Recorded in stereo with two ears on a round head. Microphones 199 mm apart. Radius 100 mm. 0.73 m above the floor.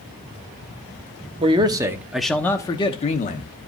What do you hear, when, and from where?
1.4 s a man speaking: 25° right (ahead or behind), 1.0 m; by 3.5 s 40° left (ahead or behind), 1.0 m